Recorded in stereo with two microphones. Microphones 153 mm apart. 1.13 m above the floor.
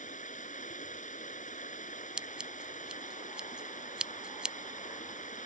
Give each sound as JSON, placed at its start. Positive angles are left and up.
{"t": 0.0, "sound": "running water", "side_deg": 55}
{"t": 2.2, "sound": "scissors", "side_deg": -5}